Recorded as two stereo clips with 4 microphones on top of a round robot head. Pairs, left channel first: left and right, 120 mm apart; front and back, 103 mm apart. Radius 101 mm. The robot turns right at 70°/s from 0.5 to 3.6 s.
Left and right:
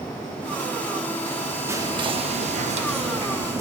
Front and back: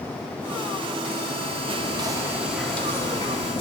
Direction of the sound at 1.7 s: 155° right.